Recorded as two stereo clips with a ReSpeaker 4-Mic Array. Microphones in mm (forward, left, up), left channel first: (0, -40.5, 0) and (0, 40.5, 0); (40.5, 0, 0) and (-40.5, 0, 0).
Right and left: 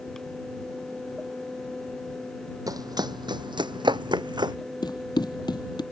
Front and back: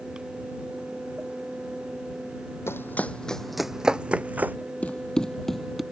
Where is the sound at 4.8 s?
75° right; by 5.8 s 95° right.